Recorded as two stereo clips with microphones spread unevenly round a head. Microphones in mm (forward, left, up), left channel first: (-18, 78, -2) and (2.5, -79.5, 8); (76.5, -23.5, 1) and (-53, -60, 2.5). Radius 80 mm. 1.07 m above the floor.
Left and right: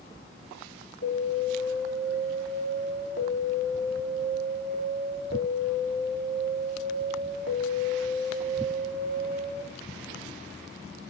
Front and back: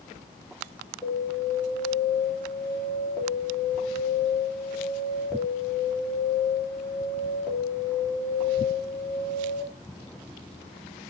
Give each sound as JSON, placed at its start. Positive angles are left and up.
{"t": 1.0, "sound": "an alarm", "azimuth_deg": 100, "distance_m": 2.5}